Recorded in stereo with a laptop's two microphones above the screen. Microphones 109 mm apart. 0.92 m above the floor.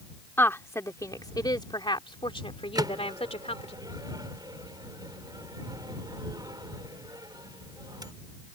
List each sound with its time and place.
0.4 s a woman speaking: 20° left (ahead or behind); by 3.8 s 70° left (ahead or behind)
2.8 s a microwave: 40° right (ahead or behind)